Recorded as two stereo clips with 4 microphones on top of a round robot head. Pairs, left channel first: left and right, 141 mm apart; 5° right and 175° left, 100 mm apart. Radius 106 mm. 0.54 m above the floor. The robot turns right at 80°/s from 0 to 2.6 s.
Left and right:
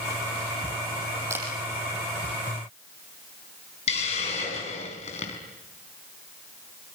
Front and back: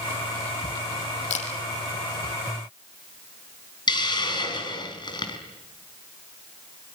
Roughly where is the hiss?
Ahead left.